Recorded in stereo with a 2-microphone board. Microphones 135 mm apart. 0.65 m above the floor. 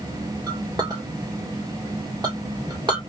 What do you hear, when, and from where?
0.5 s a clink: 30° right (ahead or behind), 1.3 m